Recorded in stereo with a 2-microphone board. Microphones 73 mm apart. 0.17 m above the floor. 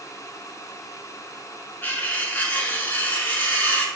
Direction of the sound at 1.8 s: 25° left (ahead or behind).